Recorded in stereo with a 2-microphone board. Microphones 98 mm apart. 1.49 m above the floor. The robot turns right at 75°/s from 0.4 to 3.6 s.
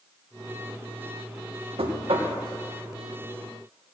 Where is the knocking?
95° right, 1.5 m; by 2.3 s 55° right, 1.5 m.